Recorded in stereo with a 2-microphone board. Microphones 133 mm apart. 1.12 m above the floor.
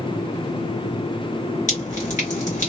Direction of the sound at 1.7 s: 65° left (ahead or behind).